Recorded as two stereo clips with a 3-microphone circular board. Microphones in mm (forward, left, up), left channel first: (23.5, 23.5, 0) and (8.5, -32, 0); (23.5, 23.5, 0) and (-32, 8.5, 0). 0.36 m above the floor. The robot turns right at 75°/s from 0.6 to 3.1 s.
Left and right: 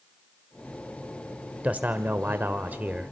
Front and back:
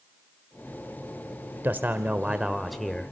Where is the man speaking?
150° right, 1.1 m; by 3.1 s 40° right, 1.1 m.